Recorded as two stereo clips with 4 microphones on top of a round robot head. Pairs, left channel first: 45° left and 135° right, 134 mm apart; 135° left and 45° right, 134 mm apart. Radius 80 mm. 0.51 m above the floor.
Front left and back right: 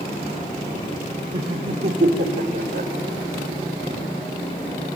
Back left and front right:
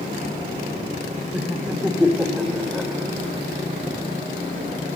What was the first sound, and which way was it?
Laughter, 120° right.